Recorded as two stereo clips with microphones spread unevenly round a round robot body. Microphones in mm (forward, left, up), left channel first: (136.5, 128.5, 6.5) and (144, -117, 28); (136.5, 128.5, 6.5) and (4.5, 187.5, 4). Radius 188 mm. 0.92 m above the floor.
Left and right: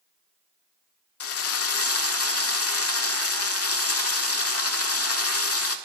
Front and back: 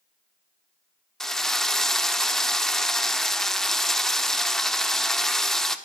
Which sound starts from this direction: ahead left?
A drill, at 1.2 s.